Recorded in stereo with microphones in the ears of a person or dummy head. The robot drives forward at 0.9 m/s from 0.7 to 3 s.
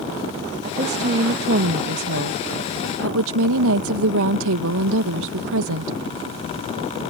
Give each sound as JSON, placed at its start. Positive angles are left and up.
{"t": 0.6, "sound": "a woman speaking", "side_deg": -40}